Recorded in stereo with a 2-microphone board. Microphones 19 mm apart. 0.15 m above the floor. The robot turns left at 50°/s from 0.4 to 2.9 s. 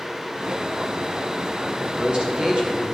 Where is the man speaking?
30° right, 2.5 m; by 3.0 s 90° right, 2.5 m.